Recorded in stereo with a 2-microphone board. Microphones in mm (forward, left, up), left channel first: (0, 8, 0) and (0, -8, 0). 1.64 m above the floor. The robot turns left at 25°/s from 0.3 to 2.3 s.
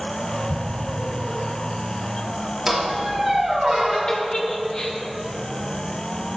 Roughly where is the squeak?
Centre.